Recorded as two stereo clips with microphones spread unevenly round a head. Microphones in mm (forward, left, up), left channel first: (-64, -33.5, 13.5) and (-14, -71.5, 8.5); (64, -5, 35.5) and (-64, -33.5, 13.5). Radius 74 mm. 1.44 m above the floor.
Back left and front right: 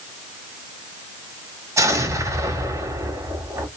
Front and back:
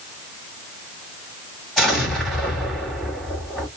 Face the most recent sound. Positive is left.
turn(degrees=-75)